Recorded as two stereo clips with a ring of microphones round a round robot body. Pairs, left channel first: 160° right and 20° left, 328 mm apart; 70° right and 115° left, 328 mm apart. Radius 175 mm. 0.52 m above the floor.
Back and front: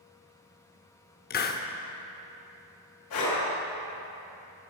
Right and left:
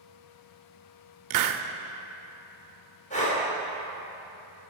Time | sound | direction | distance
1.3 | a hiss | 140° left | 0.6 m
3.1 | breathing | 135° right | 3 m